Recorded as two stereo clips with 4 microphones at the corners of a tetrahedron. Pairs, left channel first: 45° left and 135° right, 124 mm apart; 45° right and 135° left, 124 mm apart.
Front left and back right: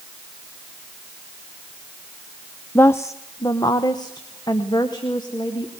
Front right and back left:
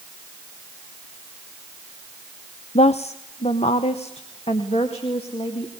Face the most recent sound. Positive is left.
turn(degrees=-10)